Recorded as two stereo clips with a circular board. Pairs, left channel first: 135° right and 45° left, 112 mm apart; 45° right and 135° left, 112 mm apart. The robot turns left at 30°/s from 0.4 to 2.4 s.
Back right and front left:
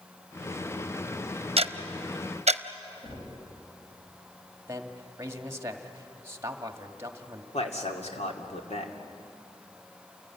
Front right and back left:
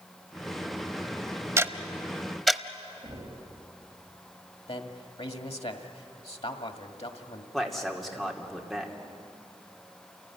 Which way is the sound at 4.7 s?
20° right.